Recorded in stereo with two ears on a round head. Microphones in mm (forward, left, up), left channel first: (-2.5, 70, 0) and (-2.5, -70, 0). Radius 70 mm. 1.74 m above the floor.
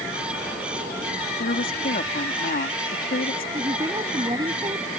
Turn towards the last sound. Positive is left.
turn(degrees=-25)  # may be behind; listen again after turning